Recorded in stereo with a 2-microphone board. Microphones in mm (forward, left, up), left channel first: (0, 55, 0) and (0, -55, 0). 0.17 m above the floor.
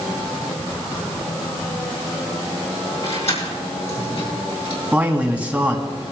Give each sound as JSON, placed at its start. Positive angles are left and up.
{"t": 3.0, "sound": "keys jangling", "side_deg": 70, "distance_m": 5.5}
{"t": 4.9, "sound": "a man speaking", "side_deg": -15, "distance_m": 1.6}